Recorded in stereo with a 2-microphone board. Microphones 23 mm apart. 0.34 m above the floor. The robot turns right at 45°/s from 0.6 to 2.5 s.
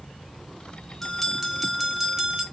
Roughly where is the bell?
Behind.